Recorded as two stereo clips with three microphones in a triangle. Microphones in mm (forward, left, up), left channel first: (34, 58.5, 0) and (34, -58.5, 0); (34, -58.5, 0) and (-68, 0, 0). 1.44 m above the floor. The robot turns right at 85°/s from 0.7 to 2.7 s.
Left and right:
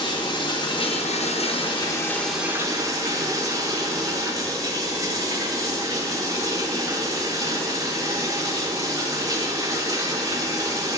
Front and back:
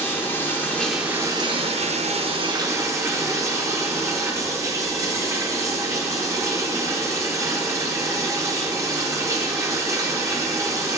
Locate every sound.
0.0 s running water: 45° left, 0.9 m; by 11.0 s 145° right, 0.9 m